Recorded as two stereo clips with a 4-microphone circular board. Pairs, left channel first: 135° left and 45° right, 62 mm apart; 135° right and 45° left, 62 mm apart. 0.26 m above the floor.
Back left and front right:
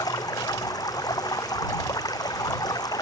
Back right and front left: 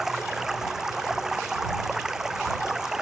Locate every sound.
0.0 s running water: 130° left